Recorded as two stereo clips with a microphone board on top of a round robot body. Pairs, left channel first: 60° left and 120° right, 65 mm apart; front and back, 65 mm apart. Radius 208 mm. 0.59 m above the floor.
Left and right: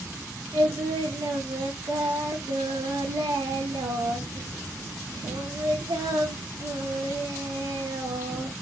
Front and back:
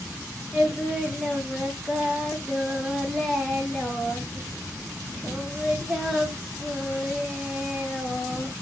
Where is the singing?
95° right, 0.6 m.